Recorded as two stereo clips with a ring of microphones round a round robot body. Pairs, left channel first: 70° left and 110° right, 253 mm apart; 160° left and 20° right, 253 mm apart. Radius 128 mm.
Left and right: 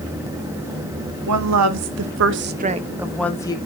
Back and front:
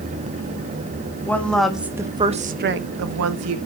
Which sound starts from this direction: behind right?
A woman speaking, at 1.3 s.